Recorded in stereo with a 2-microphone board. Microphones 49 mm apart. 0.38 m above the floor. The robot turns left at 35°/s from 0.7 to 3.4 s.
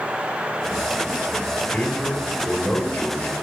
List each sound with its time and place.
1.7 s a man speaking: 170° left, 1.6 m; by 3.3 s 115° left, 1.6 m